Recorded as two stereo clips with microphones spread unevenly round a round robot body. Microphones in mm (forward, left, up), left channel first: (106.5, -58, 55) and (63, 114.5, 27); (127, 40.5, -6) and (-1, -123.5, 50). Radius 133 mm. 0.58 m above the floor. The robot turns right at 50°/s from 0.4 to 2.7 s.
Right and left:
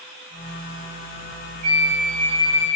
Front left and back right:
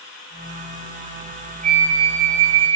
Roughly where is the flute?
Behind.